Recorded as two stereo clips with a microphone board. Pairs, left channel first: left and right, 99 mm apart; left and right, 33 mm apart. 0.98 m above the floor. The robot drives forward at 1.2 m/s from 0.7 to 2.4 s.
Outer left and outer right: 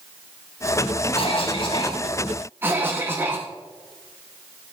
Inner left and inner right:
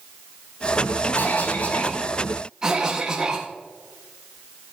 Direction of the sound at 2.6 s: 20° right (ahead or behind).